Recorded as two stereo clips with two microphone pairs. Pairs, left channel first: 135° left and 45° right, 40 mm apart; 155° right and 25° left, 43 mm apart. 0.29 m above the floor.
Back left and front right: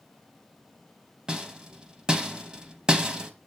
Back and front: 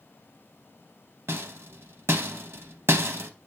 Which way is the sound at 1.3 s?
15° left.